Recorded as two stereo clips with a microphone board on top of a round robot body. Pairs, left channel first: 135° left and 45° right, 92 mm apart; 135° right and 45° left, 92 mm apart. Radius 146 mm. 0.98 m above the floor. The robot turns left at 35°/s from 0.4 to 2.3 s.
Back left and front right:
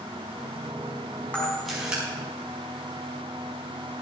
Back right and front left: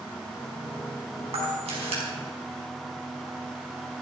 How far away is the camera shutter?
About 4.5 m.